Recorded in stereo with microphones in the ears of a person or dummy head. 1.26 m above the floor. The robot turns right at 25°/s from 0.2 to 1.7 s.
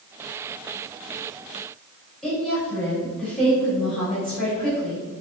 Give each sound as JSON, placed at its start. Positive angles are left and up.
{"t": 2.2, "sound": "a woman speaking", "side_deg": 5, "distance_m": 1.7}